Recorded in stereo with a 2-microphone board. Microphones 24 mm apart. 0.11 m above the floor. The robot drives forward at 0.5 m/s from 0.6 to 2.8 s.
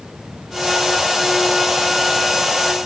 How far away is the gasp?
No gasp in this recording.